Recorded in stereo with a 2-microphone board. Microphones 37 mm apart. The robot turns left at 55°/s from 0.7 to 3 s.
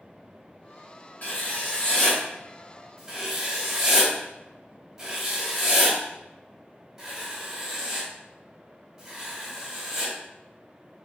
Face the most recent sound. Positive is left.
turn(degrees=-10)  # may be behind; listen again after turning